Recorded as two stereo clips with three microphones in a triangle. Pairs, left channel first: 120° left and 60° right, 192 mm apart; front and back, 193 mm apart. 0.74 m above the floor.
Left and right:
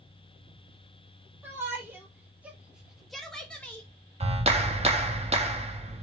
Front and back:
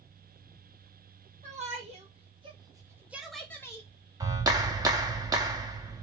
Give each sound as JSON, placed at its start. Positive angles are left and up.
{"t": 1.4, "sound": "a shout", "azimuth_deg": -135, "distance_m": 1.6}
{"t": 4.2, "sound": "a clap", "azimuth_deg": -115, "distance_m": 0.8}